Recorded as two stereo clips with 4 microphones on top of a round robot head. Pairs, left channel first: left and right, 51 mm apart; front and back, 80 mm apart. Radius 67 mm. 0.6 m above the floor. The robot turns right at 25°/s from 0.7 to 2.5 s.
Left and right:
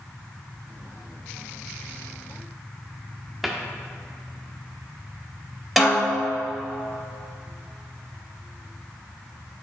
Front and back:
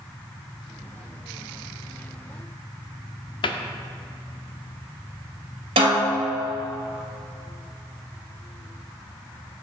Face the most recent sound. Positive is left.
turn(degrees=-175)